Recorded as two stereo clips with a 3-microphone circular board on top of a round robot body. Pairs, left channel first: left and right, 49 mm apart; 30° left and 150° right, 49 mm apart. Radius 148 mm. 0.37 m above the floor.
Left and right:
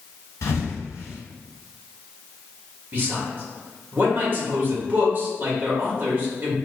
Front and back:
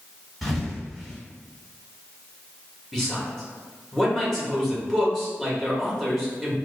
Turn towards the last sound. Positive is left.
turn(degrees=-55)